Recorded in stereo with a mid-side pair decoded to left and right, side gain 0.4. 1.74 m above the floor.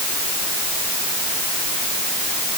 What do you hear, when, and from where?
Only background noise.